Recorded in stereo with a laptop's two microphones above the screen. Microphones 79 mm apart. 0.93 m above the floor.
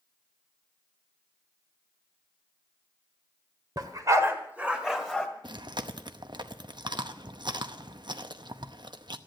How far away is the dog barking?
About 1.5 m.